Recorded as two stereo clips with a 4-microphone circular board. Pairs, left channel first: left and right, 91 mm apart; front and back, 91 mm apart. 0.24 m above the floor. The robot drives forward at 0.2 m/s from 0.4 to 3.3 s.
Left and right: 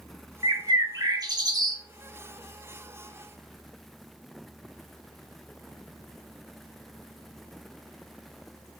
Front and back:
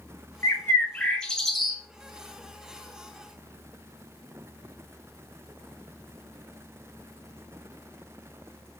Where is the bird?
55° right, 0.5 m; by 1.8 s 95° right, 0.5 m.